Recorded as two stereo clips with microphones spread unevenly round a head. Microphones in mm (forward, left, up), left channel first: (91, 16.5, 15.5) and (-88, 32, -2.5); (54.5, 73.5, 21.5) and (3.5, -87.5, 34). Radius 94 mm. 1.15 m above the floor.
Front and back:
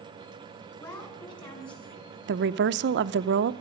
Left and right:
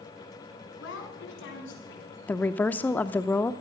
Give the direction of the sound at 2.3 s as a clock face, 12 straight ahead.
7 o'clock.